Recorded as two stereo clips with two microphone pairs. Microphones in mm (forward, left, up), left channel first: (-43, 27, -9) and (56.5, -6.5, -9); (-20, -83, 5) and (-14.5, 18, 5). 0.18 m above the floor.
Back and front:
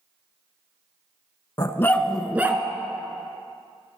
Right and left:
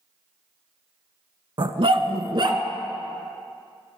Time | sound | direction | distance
1.6 | a dog barking | 120° left | 0.5 m